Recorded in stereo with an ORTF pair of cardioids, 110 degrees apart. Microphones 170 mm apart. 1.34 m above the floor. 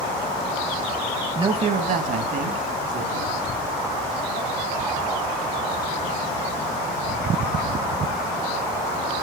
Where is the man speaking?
25° right, 1.2 m; by 3.5 s 70° right, 3.5 m.